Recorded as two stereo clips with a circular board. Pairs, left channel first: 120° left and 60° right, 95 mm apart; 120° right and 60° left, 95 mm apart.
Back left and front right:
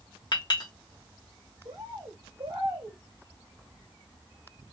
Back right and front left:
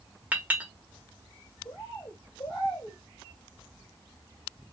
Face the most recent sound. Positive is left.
turn(degrees=-85)